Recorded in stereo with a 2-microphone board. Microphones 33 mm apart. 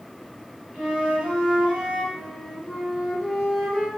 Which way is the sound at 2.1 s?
5° right (ahead or behind).